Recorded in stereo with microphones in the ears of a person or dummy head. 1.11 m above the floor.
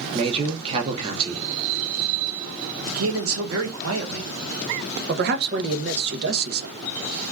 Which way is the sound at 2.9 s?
70° right (ahead or behind).